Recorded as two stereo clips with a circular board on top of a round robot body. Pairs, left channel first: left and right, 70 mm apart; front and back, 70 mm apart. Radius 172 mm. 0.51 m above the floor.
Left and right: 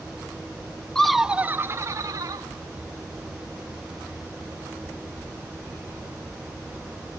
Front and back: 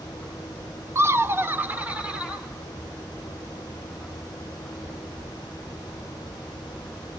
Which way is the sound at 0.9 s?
165° left.